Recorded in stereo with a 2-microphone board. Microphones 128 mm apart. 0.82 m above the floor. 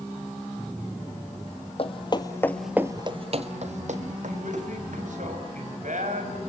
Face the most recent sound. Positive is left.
turn(degrees=-80)